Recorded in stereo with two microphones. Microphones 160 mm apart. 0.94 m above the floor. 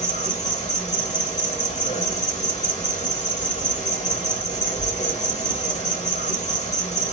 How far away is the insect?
About 1.6 m.